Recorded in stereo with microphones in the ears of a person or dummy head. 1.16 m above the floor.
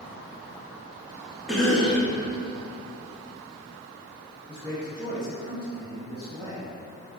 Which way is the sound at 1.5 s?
5° right (ahead or behind).